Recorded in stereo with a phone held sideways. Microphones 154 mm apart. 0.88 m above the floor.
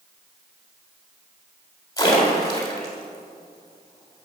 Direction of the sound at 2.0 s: 25° left (ahead or behind).